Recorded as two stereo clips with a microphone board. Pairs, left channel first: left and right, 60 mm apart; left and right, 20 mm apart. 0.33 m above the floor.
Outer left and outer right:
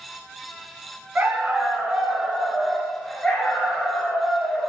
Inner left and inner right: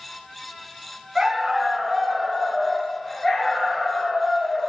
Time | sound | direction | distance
1.1 | a dog barking | 30° right (ahead or behind) | 0.9 m